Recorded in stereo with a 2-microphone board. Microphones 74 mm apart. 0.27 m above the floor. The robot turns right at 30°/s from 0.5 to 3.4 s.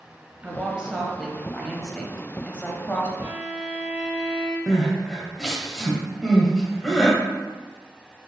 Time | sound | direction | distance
0.4 | a woman speaking | 15° right (ahead or behind) | 1.3 m
3.2 | a violin | 20° right (ahead or behind) | 1.5 m
4.7 | crying | 5° left (ahead or behind) | 1.2 m